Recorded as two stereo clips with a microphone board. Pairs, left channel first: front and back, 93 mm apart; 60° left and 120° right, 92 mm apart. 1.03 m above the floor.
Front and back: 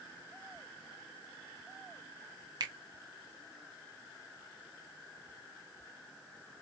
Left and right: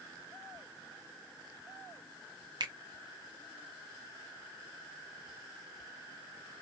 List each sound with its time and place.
2.6 s a finger snap: 145° right, 0.9 m